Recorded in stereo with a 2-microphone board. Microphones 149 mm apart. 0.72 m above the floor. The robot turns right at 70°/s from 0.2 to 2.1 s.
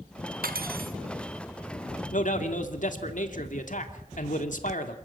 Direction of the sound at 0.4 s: 105° right.